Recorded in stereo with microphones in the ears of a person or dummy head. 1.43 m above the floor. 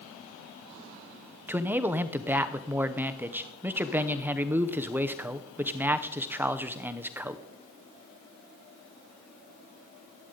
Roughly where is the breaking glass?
No breaking glass in this recording.